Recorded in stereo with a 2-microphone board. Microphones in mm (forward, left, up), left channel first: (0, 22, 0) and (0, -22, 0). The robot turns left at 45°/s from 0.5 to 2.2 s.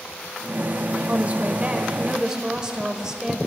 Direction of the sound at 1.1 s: 105° right.